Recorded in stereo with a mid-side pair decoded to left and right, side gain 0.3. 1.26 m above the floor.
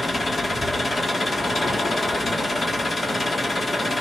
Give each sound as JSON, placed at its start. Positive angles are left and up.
{"t": 0.0, "sound": "an engine running", "azimuth_deg": 40, "distance_m": 3.0}